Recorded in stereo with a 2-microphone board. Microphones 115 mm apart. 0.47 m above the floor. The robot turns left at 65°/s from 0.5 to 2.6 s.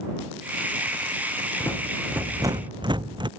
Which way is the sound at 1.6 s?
25° left.